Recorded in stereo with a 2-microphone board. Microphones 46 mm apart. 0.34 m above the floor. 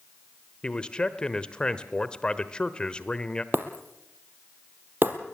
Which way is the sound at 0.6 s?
20° left (ahead or behind).